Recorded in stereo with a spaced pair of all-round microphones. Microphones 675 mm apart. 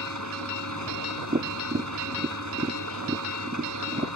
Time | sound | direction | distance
0.0 | an engine running | 25° right (ahead or behind) | ?
1.3 | tapping | 15° right (ahead or behind) | ?